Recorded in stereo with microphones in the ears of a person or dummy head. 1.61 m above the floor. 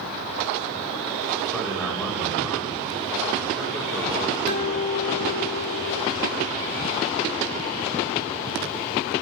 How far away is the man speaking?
About 1.9 m.